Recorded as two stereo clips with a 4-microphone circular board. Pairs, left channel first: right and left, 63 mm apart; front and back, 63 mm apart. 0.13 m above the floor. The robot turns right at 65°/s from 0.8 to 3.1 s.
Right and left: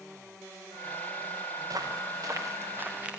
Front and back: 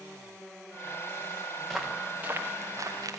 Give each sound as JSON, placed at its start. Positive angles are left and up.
{"t": 1.6, "sound": "footsteps", "azimuth_deg": 80, "distance_m": 3.5}